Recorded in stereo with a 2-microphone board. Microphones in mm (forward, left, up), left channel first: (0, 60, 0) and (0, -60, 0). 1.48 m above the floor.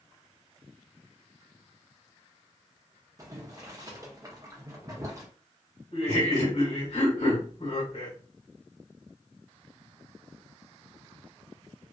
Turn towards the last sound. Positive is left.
turn(degrees=65)  # may be behind; listen again after turning